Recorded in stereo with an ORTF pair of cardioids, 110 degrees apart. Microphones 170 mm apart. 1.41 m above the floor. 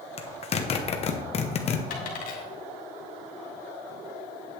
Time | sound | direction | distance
0.2 | a zipper | 40° left | 1.0 m
1.9 | a dropped coin | 60° left | 2.5 m